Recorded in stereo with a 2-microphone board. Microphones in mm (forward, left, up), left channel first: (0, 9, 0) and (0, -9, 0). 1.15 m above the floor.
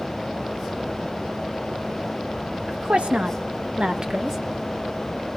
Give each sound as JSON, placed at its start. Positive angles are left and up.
{"t": 2.7, "sound": "a woman speaking", "side_deg": -70, "distance_m": 2.0}